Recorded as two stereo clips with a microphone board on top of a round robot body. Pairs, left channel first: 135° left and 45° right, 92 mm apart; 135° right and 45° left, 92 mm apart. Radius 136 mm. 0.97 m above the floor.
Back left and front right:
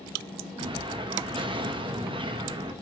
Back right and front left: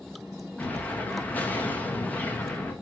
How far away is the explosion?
About 1.8 m.